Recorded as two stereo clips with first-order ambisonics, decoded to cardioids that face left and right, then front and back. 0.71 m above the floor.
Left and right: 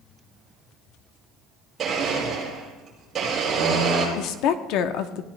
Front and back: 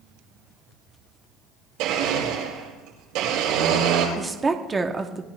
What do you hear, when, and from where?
1.8 s a blender: 155° right, 9 m
4.2 s a woman speaking: 105° left, 1.1 m